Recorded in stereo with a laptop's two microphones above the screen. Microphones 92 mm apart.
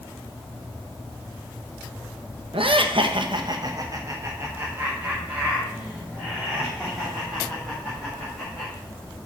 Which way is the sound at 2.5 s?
70° right (ahead or behind).